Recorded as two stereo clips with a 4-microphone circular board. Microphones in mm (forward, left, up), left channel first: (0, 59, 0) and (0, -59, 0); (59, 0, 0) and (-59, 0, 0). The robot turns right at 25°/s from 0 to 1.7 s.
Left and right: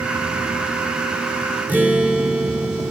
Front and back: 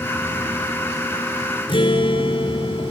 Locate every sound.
1.7 s a guitar: 20° right, 2.5 m